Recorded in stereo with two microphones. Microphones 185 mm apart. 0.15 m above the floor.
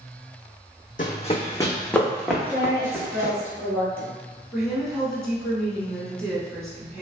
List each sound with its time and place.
1.0 s running footsteps: 50° left (ahead or behind), 0.5 m; by 3.3 s 15° right (ahead or behind), 1.4 m
2.4 s a woman speaking: 10° left (ahead or behind), 1.4 m
4.5 s a woman speaking: centre (ahead or behind), 1.3 m